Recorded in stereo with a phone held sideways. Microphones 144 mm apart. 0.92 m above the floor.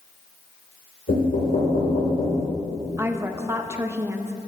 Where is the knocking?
80° left, 2.5 m.